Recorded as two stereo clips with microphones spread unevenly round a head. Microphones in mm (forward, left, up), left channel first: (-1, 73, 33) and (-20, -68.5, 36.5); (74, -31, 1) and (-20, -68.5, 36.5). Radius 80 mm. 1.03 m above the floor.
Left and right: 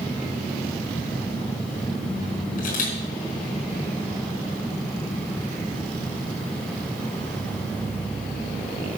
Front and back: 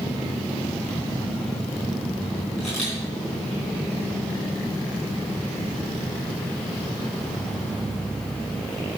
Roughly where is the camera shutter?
Left.